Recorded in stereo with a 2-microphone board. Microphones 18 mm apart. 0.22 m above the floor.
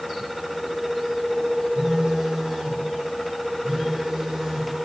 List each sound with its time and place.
1.8 s a phone buzzing: 40° right (ahead or behind), 3.5 m